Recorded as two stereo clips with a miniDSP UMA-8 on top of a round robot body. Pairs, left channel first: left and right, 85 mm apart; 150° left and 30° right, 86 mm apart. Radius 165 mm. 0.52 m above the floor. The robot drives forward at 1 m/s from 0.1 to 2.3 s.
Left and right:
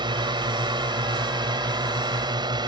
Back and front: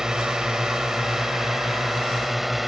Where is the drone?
115° right; by 2.7 s 120° right.